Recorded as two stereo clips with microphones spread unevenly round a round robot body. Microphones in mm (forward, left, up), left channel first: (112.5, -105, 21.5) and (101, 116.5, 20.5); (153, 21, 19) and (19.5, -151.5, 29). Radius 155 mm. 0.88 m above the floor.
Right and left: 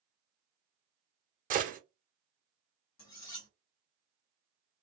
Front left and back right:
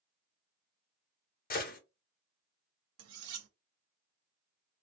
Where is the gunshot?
60° left, 1.0 m.